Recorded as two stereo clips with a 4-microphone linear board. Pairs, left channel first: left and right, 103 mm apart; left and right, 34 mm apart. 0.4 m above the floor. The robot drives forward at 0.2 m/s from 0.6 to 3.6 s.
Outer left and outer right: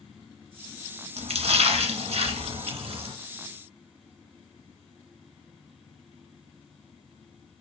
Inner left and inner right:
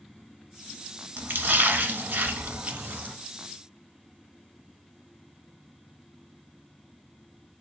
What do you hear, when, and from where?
1.2 s a splash: 80° right, 0.7 m; by 3.1 s 65° right (ahead or behind), 0.8 m